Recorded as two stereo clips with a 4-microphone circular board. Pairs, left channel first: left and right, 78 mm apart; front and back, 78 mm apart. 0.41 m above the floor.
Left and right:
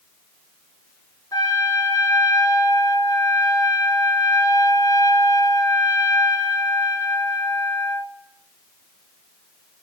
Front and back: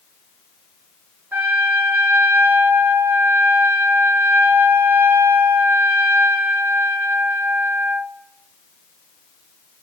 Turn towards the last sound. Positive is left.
turn(degrees=115)